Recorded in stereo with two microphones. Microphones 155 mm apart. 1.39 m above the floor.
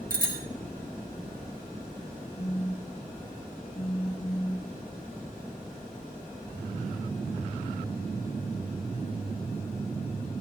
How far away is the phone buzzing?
About 1.0 m.